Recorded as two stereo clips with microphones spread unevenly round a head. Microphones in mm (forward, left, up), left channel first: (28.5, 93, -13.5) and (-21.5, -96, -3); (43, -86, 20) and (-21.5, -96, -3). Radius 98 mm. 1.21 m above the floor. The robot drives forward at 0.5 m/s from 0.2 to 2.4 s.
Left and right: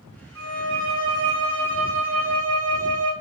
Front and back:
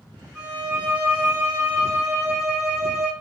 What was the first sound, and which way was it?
A violin, 90° right.